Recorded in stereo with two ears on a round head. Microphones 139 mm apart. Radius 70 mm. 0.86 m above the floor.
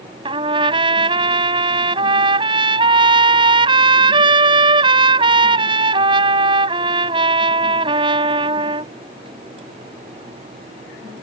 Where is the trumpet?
30° right (ahead or behind).